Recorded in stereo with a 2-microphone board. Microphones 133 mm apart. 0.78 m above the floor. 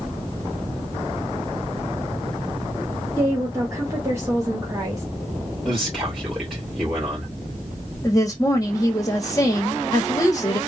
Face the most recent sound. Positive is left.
turn(degrees=25)  # may be behind; listen again after turning